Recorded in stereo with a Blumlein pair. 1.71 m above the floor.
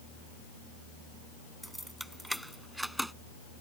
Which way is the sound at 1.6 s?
Straight ahead.